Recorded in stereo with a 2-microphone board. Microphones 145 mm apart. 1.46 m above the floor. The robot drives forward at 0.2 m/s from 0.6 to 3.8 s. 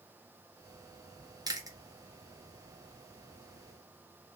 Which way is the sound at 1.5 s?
25° right (ahead or behind).